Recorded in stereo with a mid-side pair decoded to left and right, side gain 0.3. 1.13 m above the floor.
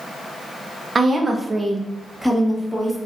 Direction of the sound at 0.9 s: 50° right.